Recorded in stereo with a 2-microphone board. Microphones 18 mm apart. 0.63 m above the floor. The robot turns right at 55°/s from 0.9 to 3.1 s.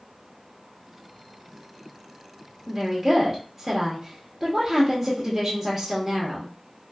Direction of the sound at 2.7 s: 20° right (ahead or behind).